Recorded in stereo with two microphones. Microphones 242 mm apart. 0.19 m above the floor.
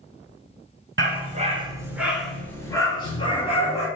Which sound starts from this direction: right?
A dog barking, at 1.0 s.